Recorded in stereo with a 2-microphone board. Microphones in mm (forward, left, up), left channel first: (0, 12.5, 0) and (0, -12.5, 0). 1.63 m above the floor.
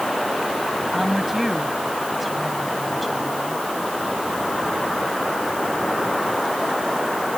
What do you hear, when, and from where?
0.9 s a woman speaking: centre (ahead or behind)